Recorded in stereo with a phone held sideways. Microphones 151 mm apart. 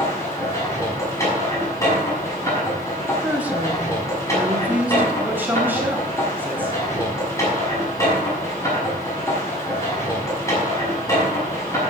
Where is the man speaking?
15° right (ahead or behind), 3.5 m.